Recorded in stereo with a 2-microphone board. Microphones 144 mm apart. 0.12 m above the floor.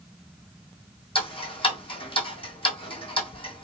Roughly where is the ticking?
Left.